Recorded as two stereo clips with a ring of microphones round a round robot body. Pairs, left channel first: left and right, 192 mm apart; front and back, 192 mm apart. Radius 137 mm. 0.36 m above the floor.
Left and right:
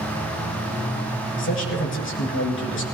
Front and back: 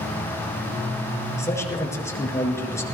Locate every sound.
1.4 s a man speaking: 75° left, 5.5 m